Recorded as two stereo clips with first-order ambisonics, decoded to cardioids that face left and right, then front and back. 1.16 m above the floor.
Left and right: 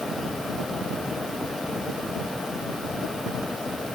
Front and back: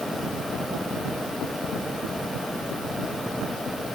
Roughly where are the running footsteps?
I don't hear running footsteps.